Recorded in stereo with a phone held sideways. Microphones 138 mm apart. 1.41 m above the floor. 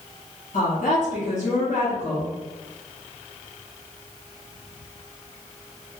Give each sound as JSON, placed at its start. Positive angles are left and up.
{"t": 0.5, "sound": "a woman speaking", "side_deg": 60, "distance_m": 1.2}